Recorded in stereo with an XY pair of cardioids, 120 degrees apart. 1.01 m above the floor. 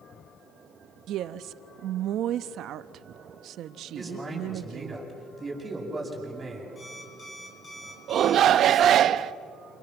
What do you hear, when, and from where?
1.1 s a woman speaking: 65° right, 1.1 m
4.0 s a man speaking: 20° right, 8.5 m
6.8 s an alarm clock: 30° left, 7 m
8.1 s a shout: 55° right, 0.8 m